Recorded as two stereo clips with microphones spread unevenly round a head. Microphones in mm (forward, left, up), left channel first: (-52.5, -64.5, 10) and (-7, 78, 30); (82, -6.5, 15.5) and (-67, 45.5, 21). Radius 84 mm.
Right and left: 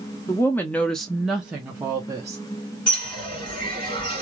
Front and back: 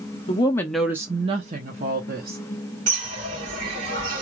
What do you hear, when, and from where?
0.3 s a woman speaking: 35° right, 0.6 m; by 2.4 s 145° left, 1.2 m
2.9 s a bird: 165° right, 2 m